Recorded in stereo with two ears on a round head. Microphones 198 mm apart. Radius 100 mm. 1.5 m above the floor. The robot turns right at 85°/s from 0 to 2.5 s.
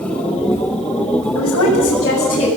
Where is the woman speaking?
70° left, 8 m; by 2.5 s 170° left, 8 m.